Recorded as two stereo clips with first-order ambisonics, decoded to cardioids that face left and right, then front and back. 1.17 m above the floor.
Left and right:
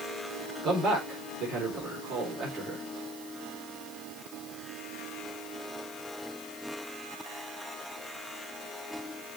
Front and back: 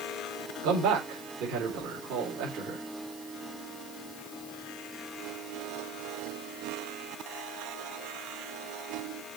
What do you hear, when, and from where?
0.6 s a man speaking: 145° right, 4 m